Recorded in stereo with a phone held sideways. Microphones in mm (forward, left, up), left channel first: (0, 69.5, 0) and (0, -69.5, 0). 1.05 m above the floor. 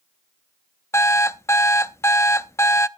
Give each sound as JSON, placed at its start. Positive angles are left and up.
{"t": 0.9, "sound": "an alarm clock", "side_deg": 20, "distance_m": 0.5}